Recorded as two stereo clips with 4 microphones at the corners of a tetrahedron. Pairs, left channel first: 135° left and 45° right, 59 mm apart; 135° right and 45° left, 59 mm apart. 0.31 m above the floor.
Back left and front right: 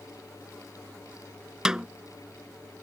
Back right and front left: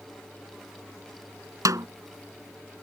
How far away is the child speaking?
I don't hear a child speaking.